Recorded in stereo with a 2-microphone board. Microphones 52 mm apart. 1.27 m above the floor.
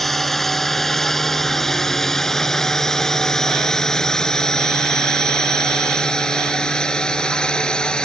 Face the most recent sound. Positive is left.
turn(degrees=15)  # may be behind; listen again after turning